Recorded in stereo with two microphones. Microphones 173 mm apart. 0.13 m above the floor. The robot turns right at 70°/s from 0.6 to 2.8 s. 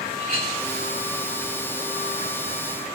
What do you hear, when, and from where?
0.2 s a clink: 50° right (ahead or behind), 7.5 m